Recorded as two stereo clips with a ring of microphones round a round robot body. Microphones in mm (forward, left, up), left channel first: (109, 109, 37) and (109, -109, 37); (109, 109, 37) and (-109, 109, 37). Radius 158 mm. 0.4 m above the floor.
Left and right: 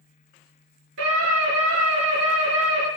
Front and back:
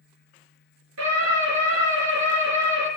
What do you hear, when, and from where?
1.0 s a scream: 140° right, 6.5 m